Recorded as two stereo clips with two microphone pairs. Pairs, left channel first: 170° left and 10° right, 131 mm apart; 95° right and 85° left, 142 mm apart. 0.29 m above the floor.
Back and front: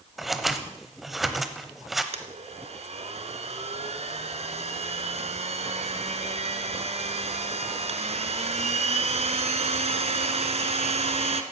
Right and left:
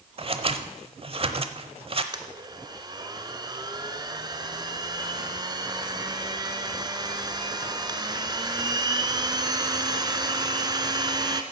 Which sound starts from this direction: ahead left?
A blender, at 2.1 s.